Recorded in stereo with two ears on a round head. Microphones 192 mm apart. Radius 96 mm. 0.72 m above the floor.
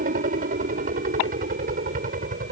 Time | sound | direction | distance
0.0 | a helicopter | 40° right (ahead or behind) | ?